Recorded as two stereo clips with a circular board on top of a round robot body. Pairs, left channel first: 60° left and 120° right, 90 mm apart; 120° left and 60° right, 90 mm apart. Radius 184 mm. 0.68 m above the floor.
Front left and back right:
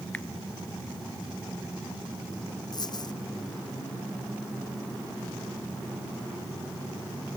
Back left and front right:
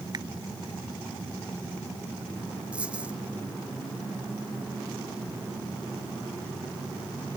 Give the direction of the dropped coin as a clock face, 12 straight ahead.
11 o'clock.